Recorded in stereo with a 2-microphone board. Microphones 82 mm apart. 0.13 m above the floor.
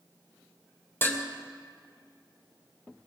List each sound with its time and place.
1.0 s dishes clattering: 25° left (ahead or behind), 2.5 m